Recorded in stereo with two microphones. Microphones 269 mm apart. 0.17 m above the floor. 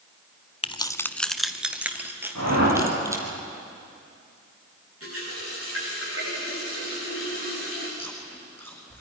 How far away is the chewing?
About 6.5 m.